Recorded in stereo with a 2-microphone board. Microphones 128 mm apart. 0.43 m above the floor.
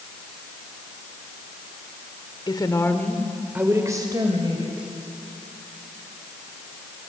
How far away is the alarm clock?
No alarm clock in this recording.